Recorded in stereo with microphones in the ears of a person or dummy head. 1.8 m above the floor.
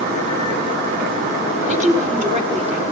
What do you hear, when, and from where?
1.7 s a woman speaking: 40° right (ahead or behind), 6.5 m